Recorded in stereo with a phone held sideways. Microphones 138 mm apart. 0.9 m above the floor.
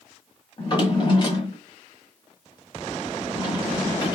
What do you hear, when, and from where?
0.6 s a drawer: 35° left (ahead or behind), 1.2 m